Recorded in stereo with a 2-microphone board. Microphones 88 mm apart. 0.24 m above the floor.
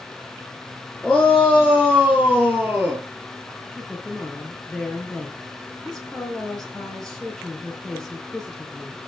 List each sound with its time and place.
1.0 s a shout: centre (ahead or behind), 3.5 m; by 3.0 s 20° right (ahead or behind), 4 m
3.7 s a woman speaking: 5° left (ahead or behind), 5.5 m